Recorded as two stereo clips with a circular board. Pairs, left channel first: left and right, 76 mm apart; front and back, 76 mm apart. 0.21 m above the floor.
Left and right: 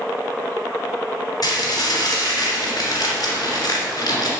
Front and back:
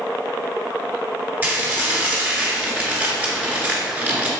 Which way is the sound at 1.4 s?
115° left.